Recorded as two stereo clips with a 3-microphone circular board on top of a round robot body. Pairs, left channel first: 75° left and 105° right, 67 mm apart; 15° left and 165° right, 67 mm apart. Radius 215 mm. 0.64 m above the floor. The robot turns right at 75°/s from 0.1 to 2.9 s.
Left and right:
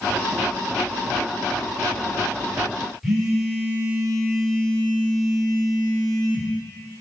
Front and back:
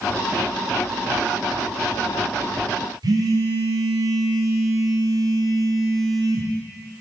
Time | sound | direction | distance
3.0 | a phone buzzing | 165° left | 0.8 m